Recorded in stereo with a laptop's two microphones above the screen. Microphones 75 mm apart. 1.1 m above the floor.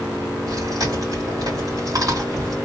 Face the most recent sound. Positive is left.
turn(degrees=-55)  # may be behind; listen again after turning